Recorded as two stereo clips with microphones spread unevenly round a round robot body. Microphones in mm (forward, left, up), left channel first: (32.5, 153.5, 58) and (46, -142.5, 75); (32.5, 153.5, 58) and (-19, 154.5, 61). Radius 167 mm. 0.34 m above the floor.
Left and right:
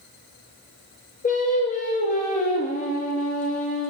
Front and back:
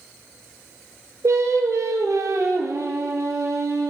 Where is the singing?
160° left, 2 m.